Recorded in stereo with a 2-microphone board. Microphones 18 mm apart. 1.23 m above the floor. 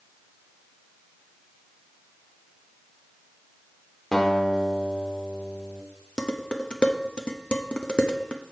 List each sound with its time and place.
4.1 s a guitar: 25° left (ahead or behind), 1.8 m
6.2 s dishes clattering: 60° left (ahead or behind), 0.8 m